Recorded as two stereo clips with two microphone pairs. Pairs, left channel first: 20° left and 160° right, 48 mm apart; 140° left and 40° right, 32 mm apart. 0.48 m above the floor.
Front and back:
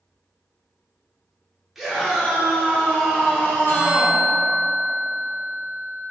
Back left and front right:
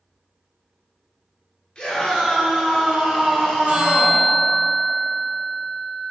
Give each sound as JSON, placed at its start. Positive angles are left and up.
{"t": 1.8, "sound": "a scream", "azimuth_deg": 120, "distance_m": 1.0}
{"t": 3.7, "sound": "a bell", "azimuth_deg": -20, "distance_m": 0.8}